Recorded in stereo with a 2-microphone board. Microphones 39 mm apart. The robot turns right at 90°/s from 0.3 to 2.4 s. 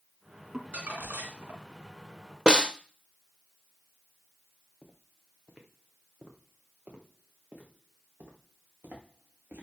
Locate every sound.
0.5 s crumpling: 160° right, 1.8 m; by 1.6 s 65° right, 1.8 m
2.5 s a snare drum: 20° right (ahead or behind), 0.8 m
4.8 s footsteps: 15° right (ahead or behind), 2.5 m; by 9.6 s 50° right (ahead or behind), 4.5 m